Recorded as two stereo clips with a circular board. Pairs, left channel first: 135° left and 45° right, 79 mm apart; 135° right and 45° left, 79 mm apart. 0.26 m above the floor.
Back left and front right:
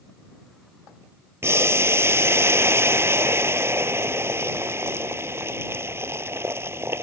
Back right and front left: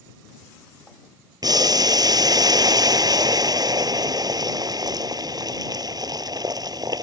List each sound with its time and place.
1.4 s boiling: 10° left